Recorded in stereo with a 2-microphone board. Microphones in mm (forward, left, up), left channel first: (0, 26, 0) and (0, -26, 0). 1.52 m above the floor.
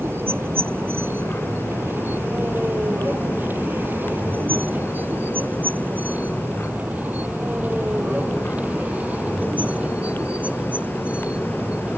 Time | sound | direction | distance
0.0 | a vehicle | 45° right (ahead or behind) | ?